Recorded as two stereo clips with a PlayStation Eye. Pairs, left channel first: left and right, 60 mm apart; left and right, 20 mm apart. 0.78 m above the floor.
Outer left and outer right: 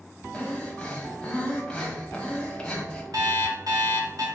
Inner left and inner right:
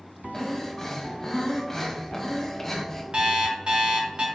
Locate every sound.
0.3 s breathing: 15° left (ahead or behind), 1.1 m
3.1 s an alarm clock: 85° right, 1.1 m